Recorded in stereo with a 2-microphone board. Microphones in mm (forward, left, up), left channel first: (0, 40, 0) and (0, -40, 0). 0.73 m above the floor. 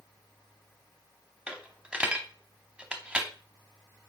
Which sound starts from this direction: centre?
A dropped coin, at 1.5 s.